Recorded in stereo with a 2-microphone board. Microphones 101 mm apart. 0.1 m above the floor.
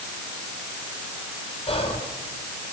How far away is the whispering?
About 4 m.